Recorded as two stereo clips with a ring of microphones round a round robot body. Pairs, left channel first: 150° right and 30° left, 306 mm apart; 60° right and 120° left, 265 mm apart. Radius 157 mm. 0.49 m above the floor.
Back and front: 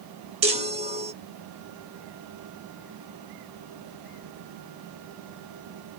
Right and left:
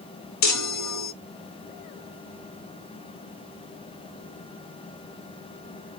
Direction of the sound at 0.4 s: 40° right.